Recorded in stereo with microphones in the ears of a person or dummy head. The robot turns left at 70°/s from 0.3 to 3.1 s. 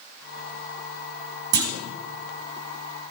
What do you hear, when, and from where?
1.5 s a clunk: 70° right (ahead or behind), 2.5 m; by 1.7 s 60° right (ahead or behind), 2.5 m